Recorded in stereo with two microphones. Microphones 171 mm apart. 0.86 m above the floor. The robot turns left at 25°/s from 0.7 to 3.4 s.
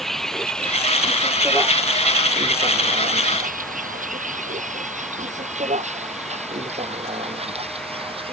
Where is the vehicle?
Centre (ahead or behind); by 8.3 s 30° right (ahead or behind).